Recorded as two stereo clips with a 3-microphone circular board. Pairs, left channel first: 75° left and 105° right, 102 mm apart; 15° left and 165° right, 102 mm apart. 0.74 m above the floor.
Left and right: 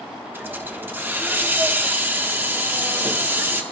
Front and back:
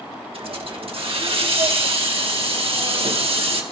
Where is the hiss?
170° right, 1.4 m.